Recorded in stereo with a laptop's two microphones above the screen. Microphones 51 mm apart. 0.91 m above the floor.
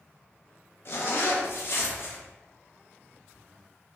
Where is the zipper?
50° left (ahead or behind), 0.5 m.